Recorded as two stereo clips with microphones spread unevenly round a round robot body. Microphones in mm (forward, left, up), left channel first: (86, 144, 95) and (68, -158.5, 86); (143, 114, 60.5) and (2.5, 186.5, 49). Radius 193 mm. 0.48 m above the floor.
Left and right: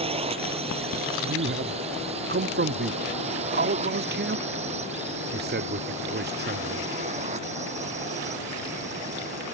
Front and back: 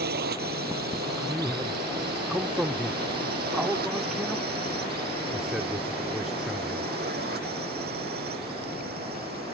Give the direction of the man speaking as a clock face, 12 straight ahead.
4 o'clock.